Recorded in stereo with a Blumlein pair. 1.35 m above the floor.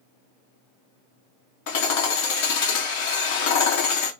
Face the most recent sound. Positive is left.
turn(degrees=50)